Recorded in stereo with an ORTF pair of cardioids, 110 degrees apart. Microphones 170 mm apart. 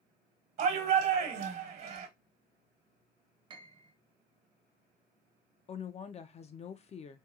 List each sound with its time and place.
0.6 s a shout: 55° right, 1.1 m
3.5 s a piano: 30° right, 0.8 m
5.7 s a woman speaking: 40° left, 0.6 m